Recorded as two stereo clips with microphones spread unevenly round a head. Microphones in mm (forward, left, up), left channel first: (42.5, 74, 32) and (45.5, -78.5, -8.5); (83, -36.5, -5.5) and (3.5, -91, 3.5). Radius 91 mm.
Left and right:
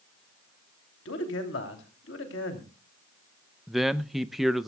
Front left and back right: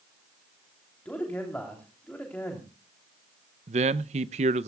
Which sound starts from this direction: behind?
A man speaking, at 3.7 s.